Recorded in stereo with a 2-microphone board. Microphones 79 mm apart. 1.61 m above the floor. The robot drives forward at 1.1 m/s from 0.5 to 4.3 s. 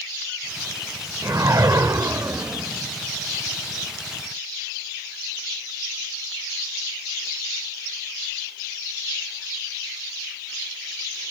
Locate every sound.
1.2 s a whoosh: 45° right (ahead or behind), 1.7 m; by 2.9 s 30° right (ahead or behind), 2.5 m